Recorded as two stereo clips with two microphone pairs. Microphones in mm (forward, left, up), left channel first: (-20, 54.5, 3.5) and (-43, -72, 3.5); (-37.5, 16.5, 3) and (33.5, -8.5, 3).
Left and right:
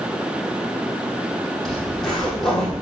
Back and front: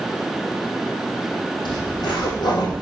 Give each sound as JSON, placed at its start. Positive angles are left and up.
{"t": 1.6, "sound": "a zipper", "azimuth_deg": 165, "distance_m": 4.0}